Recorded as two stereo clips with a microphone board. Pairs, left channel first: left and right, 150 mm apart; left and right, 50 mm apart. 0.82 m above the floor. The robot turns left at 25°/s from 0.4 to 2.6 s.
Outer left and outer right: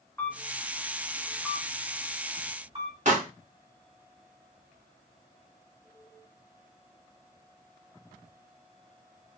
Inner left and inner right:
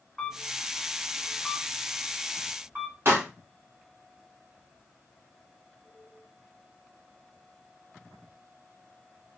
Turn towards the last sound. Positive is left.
turn(degrees=-55)  # may be behind; listen again after turning